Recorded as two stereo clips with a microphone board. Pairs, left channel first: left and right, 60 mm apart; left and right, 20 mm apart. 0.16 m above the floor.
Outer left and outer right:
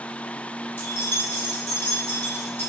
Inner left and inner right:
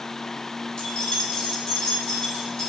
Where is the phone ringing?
No phone ringing in this recording.